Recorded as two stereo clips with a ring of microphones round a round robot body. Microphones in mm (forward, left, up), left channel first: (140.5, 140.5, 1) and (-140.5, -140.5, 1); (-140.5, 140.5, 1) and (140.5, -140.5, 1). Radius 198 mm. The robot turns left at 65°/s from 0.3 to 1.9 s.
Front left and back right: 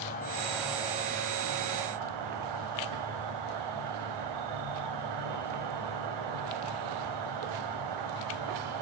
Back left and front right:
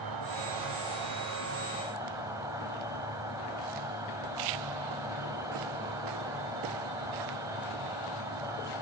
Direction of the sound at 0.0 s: 20° right.